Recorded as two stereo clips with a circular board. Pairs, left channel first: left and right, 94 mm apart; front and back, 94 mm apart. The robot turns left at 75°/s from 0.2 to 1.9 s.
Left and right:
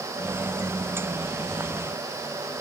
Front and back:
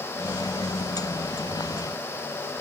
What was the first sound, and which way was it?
Only background noise.